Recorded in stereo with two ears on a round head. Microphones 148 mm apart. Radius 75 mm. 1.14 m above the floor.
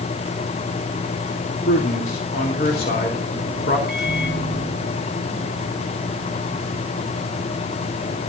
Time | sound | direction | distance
1.6 | a man speaking | 60° left (ahead or behind) | 3 m
3.9 | a microwave | centre (ahead or behind) | 5.5 m